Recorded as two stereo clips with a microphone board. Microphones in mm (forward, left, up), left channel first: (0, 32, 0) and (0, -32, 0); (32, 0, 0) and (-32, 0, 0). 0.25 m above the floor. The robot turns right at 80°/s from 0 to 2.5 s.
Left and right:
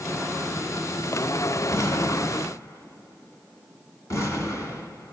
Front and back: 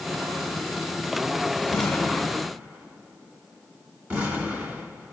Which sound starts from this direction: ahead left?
An explosion, at 1.7 s.